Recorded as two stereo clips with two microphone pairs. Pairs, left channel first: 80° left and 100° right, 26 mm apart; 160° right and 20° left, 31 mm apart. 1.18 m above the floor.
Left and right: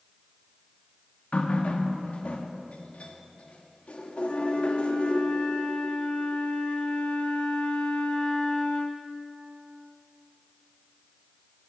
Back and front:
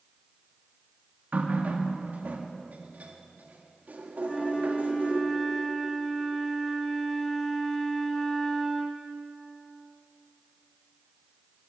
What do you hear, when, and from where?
1.3 s a running tap: 45° left, 1.2 m
4.2 s a flute: 120° left, 1.5 m